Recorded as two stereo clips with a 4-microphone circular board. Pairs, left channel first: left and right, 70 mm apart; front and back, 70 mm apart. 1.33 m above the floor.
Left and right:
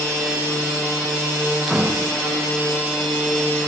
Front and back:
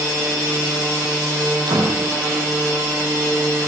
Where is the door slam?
170° right, 9.5 m.